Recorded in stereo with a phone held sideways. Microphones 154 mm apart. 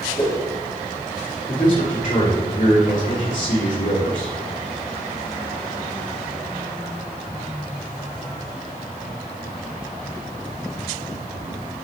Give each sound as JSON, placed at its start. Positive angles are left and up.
{"t": 0.2, "sound": "a whoosh", "side_deg": 30, "distance_m": 1.1}
{"t": 1.5, "sound": "a man speaking", "side_deg": 55, "distance_m": 3.0}